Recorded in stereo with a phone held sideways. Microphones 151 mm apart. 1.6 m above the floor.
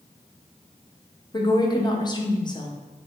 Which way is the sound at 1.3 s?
30° left (ahead or behind).